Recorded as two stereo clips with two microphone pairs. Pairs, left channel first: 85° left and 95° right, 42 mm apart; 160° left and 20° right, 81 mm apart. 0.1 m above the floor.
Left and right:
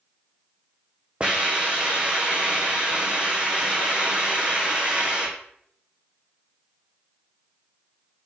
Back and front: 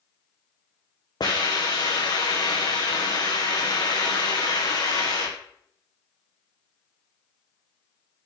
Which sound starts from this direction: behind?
A hiss, at 1.2 s.